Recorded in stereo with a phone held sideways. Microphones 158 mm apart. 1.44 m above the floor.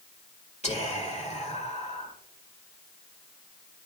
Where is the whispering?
45° left (ahead or behind), 1.9 m.